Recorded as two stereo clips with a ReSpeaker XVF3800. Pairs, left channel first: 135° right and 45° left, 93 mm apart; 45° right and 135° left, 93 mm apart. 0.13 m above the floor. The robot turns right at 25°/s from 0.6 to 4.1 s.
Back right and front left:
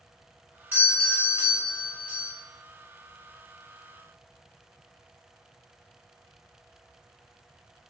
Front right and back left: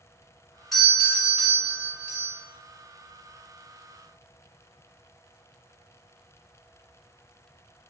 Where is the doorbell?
40° left, 1.5 m; by 2.3 s 85° left, 1.5 m.